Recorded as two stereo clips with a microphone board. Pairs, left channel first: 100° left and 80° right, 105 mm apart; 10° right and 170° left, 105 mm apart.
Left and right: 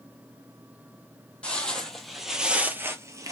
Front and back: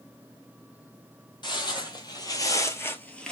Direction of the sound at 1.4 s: 25° left.